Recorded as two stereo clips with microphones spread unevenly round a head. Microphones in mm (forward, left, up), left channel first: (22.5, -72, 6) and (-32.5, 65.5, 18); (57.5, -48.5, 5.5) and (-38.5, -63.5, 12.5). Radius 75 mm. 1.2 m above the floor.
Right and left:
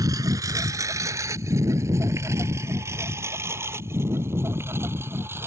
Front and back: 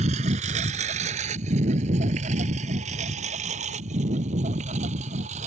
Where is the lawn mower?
Straight behind; by 5.5 s 175° right.